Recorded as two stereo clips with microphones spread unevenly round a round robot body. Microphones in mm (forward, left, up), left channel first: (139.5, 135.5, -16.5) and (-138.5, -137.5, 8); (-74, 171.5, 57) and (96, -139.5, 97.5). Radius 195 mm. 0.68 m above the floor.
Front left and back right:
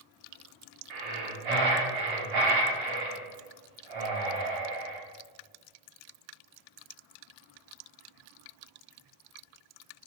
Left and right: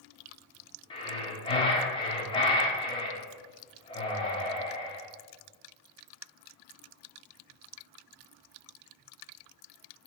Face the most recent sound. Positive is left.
turn(degrees=-165)